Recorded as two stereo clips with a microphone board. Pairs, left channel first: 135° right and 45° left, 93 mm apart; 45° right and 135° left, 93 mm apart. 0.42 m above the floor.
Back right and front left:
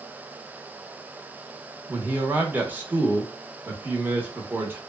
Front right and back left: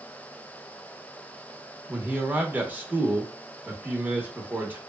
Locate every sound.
1.9 s a man speaking: 85° left, 0.8 m